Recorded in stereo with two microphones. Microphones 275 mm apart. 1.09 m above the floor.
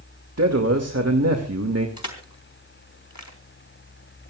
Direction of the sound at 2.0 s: 80° left.